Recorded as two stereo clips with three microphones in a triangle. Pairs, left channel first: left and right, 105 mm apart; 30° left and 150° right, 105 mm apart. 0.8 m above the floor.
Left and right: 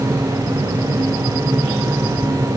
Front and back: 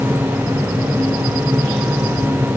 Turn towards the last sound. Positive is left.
No sound to turn to.